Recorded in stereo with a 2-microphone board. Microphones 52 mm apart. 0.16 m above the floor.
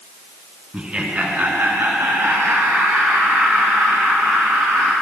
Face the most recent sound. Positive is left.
turn(degrees=-50)  # may be behind; listen again after turning